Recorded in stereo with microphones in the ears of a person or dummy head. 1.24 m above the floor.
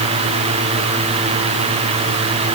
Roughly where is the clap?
No clap in this recording.